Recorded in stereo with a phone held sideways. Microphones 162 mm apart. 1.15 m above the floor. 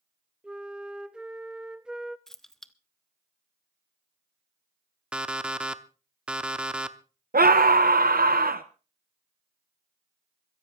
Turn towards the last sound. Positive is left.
turn(degrees=-65)  # may be behind; listen again after turning